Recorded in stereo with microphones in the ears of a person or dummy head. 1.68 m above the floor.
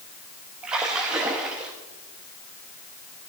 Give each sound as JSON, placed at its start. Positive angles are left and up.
{"t": 0.6, "sound": "a splash", "side_deg": -5, "distance_m": 1.1}